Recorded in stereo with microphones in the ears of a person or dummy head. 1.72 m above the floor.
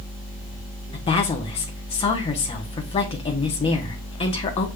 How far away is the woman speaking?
About 1.0 m.